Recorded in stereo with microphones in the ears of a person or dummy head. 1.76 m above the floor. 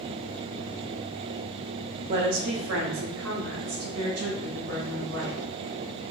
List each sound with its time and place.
2.1 s a woman speaking: 40° right (ahead or behind), 0.5 m; by 5.4 s 75° right (ahead or behind), 2 m